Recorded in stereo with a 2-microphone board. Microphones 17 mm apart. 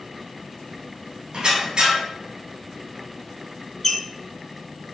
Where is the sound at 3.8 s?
25° left (ahead or behind), 0.6 m.